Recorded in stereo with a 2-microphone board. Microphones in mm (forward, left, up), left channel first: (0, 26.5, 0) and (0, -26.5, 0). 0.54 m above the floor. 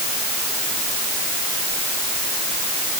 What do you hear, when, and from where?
Only background noise.